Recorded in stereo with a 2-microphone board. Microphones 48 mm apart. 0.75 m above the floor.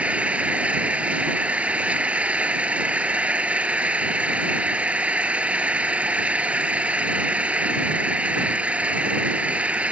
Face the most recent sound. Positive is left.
turn(degrees=-25)  # may be behind; listen again after turning